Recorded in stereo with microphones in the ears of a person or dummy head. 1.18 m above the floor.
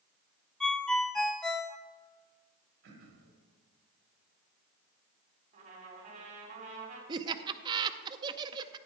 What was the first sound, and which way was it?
A ringtone, 5° left (ahead or behind).